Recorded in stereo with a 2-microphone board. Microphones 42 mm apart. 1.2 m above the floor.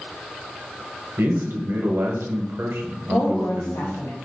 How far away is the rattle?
I don't hear a rattle.